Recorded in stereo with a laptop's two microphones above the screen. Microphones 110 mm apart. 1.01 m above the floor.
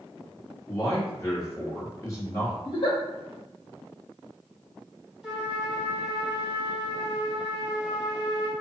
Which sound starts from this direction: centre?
A trumpet, at 5.2 s.